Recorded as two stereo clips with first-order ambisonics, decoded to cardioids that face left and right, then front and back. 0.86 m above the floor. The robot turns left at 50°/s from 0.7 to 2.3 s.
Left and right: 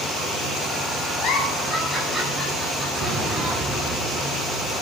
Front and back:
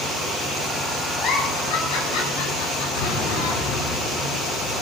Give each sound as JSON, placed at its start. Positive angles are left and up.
{"t": 1.2, "sound": "a giggle", "azimuth_deg": 50, "distance_m": 8.5}
{"t": 3.0, "sound": "an explosion", "azimuth_deg": -20, "distance_m": 8.0}